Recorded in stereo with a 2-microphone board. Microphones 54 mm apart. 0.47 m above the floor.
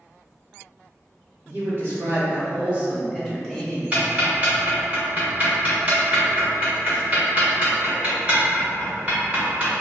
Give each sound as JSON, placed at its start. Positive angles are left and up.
{"t": 1.4, "sound": "a man speaking", "side_deg": -50, "distance_m": 1.2}
{"t": 3.9, "sound": "ticking", "side_deg": -30, "distance_m": 0.9}